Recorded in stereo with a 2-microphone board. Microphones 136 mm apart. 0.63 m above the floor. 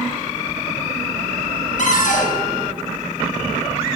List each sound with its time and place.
1.8 s a cupboard door: 75° left (ahead or behind), 3 m